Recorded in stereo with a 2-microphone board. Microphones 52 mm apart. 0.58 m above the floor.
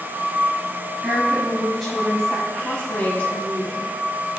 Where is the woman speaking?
5° right (ahead or behind), 4 m; by 3.9 s 30° left (ahead or behind), 4.5 m.